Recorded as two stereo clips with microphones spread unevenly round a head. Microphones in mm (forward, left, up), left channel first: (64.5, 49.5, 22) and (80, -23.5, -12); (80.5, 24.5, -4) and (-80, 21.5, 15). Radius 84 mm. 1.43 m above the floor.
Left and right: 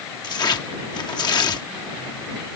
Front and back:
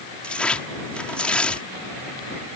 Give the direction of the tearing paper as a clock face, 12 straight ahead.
9 o'clock.